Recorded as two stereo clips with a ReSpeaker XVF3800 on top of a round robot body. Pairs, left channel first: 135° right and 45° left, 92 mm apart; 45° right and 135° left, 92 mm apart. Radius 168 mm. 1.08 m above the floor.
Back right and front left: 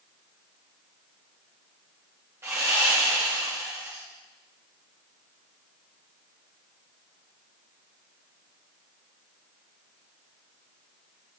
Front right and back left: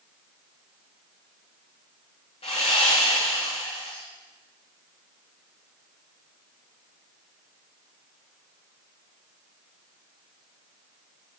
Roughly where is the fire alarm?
No fire alarm in this recording.